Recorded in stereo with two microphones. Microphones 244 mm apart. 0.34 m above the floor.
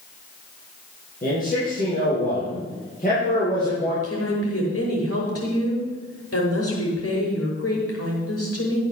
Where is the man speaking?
35° left (ahead or behind), 7.5 m.